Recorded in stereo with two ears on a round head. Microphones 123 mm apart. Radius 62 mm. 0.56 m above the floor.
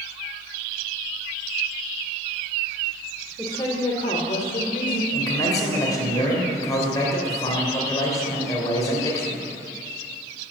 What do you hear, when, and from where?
3.4 s a woman speaking: 15° left (ahead or behind), 1.4 m; by 5.0 s 70° left (ahead or behind), 1.7 m
5.1 s a man speaking: 25° left (ahead or behind), 3 m